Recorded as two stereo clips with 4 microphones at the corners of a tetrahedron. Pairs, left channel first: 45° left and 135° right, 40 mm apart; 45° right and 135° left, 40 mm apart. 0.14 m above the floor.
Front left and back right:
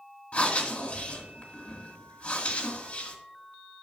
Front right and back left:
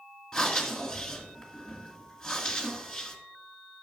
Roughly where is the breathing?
Ahead left.